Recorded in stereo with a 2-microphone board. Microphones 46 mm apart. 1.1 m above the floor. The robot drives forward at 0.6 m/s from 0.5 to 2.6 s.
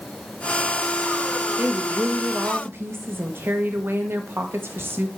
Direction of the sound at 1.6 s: 40° right (ahead or behind).